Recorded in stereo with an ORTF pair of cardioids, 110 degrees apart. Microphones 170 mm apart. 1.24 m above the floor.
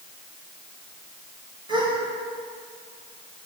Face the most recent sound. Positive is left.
turn(degrees=-30)